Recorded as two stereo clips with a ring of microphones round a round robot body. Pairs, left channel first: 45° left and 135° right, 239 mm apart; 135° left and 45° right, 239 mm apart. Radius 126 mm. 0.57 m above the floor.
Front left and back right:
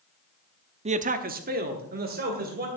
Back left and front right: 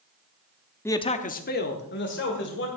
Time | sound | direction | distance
0.8 | a man speaking | 155° right | 0.7 m